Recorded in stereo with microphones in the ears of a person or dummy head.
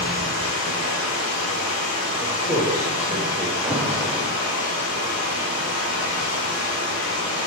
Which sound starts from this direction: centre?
An alarm, at 3.6 s.